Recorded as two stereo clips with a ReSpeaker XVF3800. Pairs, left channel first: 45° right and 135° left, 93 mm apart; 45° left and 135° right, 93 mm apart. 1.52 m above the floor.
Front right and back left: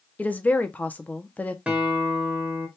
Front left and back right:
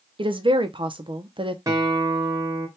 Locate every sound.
0.2 s a woman speaking: 120° right, 0.7 m
1.7 s a guitar: 160° right, 1.4 m